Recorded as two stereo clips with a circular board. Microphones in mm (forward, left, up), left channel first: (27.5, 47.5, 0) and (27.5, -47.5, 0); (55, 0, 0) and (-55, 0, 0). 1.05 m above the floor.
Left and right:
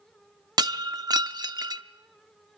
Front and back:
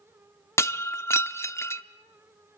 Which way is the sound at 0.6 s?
60° right.